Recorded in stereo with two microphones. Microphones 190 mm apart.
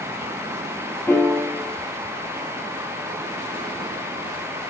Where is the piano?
10° left (ahead or behind), 3 m.